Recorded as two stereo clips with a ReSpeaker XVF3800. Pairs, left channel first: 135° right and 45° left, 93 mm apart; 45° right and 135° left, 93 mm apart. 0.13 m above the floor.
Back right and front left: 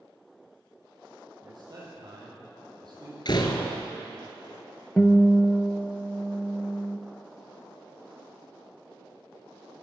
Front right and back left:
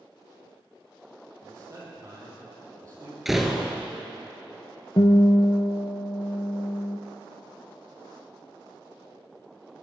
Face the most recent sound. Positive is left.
turn(degrees=-60)